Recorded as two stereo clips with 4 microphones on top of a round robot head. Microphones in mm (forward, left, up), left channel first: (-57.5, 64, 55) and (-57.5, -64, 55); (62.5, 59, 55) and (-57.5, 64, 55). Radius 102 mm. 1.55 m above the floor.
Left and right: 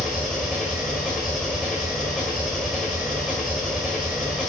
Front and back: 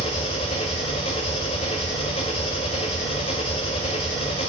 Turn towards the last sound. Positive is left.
turn(degrees=0)